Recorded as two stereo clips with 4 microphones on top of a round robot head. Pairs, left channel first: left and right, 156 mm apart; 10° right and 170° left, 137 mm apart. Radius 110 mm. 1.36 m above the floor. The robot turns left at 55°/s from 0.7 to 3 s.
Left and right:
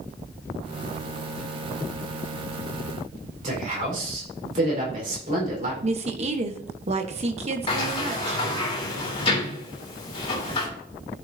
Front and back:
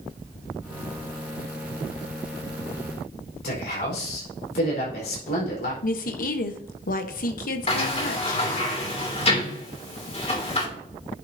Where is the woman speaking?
35° right, 1.1 m.